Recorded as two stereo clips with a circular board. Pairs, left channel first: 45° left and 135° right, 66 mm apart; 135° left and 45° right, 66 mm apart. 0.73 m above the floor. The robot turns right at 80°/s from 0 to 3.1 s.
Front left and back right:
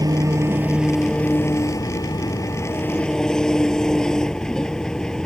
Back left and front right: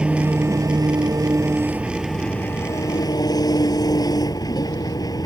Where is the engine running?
125° right; by 5.3 s 125° left.